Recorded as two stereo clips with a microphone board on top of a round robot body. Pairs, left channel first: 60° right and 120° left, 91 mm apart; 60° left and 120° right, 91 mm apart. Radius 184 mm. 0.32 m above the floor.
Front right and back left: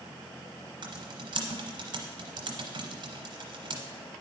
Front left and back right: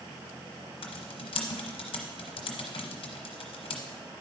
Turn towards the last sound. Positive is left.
turn(degrees=85)